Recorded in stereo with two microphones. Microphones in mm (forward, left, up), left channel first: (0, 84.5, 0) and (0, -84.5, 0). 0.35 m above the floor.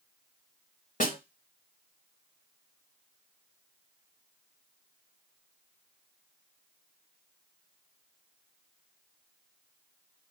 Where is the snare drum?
50° left (ahead or behind), 0.7 m.